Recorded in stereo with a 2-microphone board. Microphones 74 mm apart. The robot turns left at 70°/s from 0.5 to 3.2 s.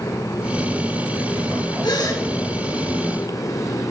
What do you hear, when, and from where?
1.8 s a gasp: 80° left, 1.3 m; by 2.2 s 55° left (ahead or behind), 1.3 m